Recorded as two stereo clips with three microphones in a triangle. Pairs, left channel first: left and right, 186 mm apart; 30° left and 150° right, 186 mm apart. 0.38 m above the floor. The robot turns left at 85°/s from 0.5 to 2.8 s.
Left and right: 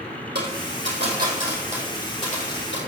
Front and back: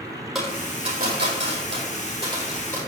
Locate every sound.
0.3 s a dropped coin: 60° right, 3.5 m; by 2.8 s 105° left, 3.5 m